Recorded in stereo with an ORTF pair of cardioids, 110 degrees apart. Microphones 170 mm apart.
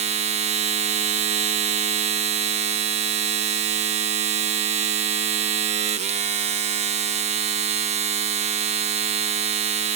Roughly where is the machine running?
Ahead right.